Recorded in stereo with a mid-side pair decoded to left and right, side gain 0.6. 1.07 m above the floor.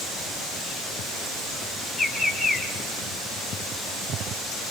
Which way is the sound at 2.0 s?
10° left.